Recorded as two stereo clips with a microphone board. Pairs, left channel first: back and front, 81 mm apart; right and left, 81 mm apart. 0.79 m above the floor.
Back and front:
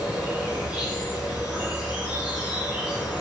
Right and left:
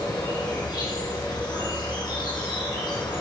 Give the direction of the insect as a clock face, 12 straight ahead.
3 o'clock.